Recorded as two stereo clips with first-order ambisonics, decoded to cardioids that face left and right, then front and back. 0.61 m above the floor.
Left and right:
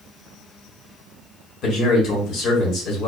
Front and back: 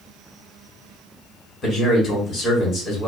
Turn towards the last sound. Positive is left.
turn(degrees=60)